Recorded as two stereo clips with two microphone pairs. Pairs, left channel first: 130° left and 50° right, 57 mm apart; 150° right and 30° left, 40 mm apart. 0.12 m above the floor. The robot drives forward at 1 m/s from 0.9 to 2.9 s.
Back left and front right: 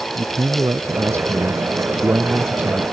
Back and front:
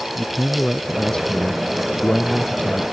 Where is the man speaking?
75° right; by 2.8 s 105° right.